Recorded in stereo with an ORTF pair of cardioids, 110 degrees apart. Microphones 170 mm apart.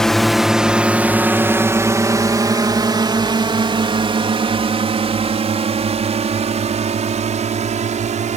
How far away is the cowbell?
No cowbell in this recording.